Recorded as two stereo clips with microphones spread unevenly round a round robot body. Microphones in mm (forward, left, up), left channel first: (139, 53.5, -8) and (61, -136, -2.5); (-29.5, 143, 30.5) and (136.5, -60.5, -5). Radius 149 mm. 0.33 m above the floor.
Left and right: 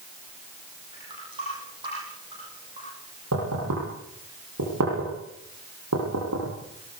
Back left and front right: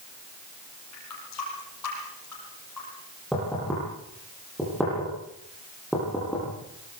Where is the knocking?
140° right, 10 m.